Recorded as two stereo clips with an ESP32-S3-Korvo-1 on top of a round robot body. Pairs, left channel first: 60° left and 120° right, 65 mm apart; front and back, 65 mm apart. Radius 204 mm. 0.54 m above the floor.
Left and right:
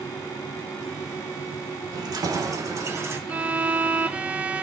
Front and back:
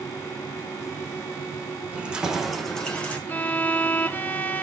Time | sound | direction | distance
1.9 | keys jangling | 110° right | 2 m
3.3 | a violin | 55° right | 1.2 m